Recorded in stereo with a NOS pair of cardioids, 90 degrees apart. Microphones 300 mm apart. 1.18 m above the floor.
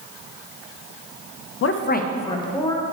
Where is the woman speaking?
50° left, 0.6 m; by 2.8 s 10° left, 1.4 m.